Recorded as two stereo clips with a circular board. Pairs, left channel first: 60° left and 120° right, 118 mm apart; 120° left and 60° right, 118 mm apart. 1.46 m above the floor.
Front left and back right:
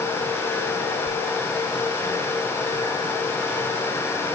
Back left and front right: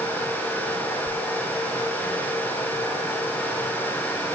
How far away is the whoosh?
About 9.5 m.